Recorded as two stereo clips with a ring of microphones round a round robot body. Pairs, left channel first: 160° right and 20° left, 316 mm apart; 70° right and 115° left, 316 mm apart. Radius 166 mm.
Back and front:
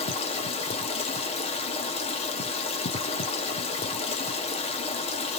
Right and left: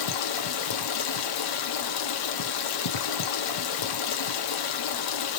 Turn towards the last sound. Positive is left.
turn(degrees=-85)